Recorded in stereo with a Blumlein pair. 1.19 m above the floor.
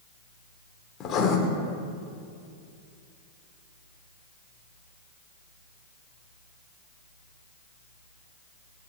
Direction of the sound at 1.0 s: 30° left.